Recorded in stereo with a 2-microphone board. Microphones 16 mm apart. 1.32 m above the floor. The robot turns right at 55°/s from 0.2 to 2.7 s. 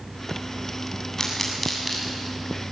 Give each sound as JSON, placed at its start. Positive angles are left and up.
{"t": 1.2, "sound": "a pop", "side_deg": 25, "distance_m": 8.0}